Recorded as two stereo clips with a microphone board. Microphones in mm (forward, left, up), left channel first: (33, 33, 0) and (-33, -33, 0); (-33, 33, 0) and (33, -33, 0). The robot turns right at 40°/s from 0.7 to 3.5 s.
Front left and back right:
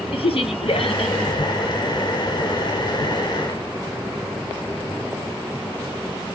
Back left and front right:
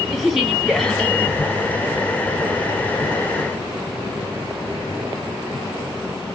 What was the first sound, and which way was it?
A woman speaking, 45° left.